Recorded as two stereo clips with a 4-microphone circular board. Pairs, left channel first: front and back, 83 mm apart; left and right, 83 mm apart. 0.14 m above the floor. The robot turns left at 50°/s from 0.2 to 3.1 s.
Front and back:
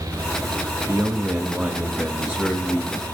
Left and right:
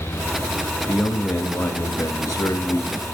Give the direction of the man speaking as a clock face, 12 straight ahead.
7 o'clock.